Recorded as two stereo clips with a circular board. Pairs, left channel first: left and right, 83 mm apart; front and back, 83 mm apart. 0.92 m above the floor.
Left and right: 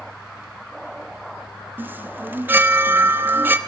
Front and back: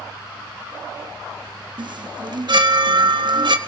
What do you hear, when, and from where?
1.8 s a chime: 155° right, 1.0 m